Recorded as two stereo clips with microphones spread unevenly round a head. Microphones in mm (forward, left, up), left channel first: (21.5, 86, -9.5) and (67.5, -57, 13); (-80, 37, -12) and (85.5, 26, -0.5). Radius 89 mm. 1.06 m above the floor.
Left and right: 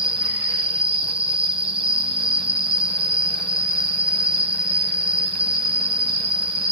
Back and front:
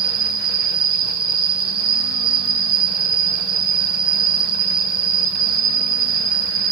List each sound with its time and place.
0.0 s an insect: 20° right, 0.8 m